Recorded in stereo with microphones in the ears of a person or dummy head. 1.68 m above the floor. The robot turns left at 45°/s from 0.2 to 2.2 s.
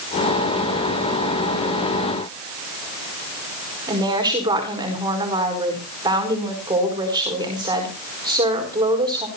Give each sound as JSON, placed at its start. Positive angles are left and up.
{"t": 3.9, "sound": "a woman speaking", "side_deg": -20, "distance_m": 4.5}